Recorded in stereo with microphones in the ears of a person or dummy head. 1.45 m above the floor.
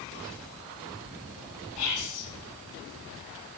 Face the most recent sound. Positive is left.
turn(degrees=65)  # may be behind; listen again after turning